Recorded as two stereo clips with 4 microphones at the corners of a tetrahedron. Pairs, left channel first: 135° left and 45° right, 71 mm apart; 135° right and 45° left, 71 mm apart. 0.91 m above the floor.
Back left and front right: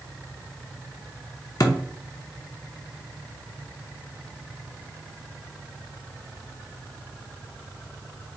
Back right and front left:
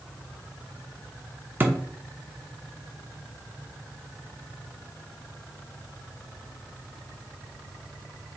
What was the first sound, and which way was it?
A thud, 105° left.